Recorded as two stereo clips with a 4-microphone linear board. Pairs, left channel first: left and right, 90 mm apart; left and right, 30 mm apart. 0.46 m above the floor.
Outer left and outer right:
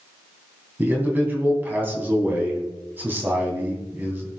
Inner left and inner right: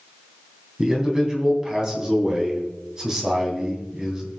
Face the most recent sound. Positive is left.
turn(degrees=-20)  # may be behind; listen again after turning